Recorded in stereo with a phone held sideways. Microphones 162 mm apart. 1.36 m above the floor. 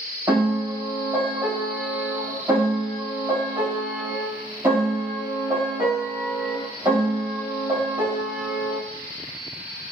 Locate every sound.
0.3 s a piano: 15° right (ahead or behind), 1.7 m